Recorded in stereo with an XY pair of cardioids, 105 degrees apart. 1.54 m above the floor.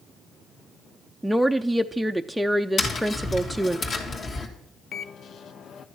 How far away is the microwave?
About 0.8 m.